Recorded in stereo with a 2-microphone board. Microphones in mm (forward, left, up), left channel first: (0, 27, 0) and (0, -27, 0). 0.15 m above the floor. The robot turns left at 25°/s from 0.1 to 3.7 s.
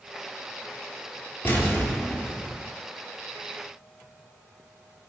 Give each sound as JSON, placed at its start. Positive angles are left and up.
{"t": 1.4, "sound": "an explosion", "azimuth_deg": 40, "distance_m": 0.7}